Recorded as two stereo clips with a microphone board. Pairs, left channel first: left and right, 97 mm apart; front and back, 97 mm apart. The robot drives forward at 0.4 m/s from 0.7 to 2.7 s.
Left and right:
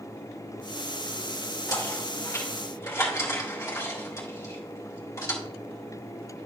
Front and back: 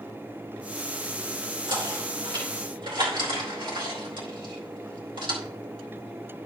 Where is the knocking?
145° left, 2.5 m; by 5.4 s 150° left, 3 m.